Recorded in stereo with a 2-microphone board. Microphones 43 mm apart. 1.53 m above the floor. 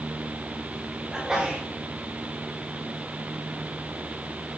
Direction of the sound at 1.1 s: 20° right (ahead or behind).